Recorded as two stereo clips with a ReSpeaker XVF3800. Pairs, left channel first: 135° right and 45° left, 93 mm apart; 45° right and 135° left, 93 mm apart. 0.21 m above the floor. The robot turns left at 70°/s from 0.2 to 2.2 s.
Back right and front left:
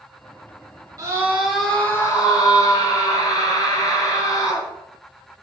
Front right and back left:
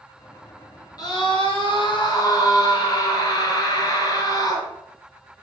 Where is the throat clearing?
I don't hear throat clearing.